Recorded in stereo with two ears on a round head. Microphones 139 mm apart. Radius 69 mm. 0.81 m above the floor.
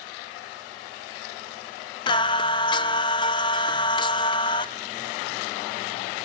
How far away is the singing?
About 0.7 m.